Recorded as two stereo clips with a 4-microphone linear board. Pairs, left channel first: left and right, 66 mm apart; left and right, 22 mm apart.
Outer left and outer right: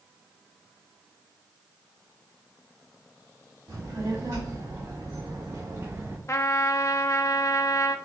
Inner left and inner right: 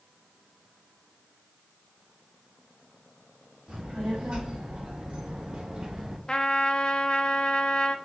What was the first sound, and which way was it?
A child speaking, 70° right (ahead or behind).